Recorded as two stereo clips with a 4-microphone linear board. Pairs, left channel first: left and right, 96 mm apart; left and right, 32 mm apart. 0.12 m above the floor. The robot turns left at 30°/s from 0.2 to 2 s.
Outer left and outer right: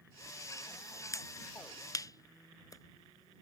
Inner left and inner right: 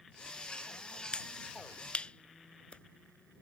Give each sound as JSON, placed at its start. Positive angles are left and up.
{"t": 1.1, "sound": "a finger snap", "side_deg": 35}